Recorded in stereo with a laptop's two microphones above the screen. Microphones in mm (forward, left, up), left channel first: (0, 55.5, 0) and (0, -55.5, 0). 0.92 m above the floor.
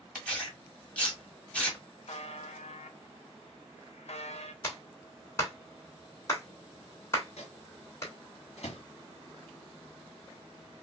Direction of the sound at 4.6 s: 30° left (ahead or behind).